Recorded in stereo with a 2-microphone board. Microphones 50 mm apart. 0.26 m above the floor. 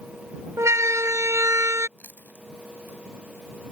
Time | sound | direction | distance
0.6 | a siren | 70° right (ahead or behind) | ?
2.0 | chewing | 40° left (ahead or behind) | ?